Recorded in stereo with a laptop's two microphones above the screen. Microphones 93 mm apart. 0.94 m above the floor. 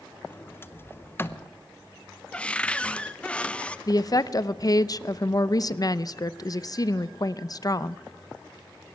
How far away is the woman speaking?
About 0.6 m.